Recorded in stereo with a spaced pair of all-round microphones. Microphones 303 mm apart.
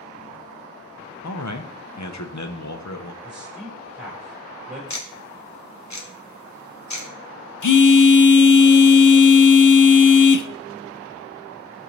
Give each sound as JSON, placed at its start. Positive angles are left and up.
{"t": 1.2, "sound": "a man speaking", "side_deg": 65, "distance_m": 0.8}
{"t": 3.2, "sound": "a man speaking", "side_deg": -5, "distance_m": 4.0}
{"t": 4.9, "sound": "ticking", "side_deg": 65, "distance_m": 1.3}
{"t": 7.6, "sound": "a phone buzzing", "side_deg": 80, "distance_m": 0.5}